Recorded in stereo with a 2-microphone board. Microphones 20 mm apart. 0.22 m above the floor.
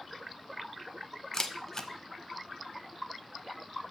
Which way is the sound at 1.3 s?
25° left (ahead or behind).